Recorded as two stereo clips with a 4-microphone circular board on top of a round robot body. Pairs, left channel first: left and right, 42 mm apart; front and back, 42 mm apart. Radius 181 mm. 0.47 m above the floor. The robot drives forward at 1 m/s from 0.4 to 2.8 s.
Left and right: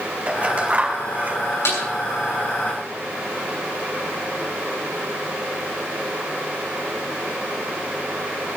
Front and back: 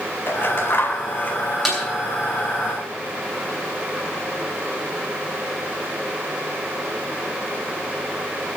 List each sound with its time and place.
0.3 s scissors: 30° right, 4 m; by 1.4 s 40° right, 3.5 m
1.6 s a snare drum: 90° left, 8.5 m